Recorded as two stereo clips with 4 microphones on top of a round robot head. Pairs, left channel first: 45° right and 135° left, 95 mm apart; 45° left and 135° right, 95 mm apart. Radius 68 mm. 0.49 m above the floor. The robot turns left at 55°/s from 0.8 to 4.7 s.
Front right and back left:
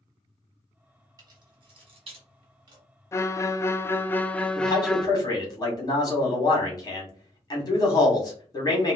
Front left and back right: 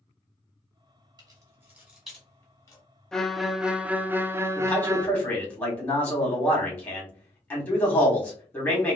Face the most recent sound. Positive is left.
turn(degrees=-20)